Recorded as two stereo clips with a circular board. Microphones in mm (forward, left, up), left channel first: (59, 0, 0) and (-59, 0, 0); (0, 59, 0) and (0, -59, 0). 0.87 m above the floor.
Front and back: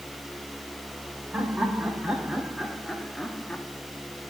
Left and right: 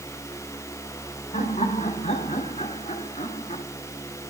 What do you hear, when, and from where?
1.3 s laughter: 100° left, 4 m; by 3.6 s 75° left, 1.5 m